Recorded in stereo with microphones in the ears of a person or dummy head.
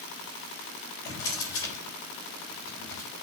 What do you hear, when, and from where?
1.1 s a drawer: 10° left (ahead or behind), 4 m